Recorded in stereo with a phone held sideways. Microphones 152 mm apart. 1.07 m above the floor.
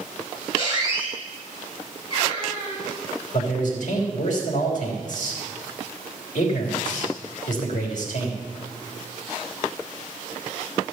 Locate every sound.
0.6 s a squeak: 40° left (ahead or behind), 5 m
3.3 s a man speaking: 60° left (ahead or behind), 3.5 m